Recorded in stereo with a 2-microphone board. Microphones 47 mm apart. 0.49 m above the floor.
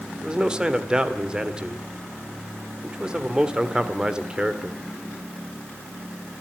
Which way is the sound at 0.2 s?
20° right (ahead or behind).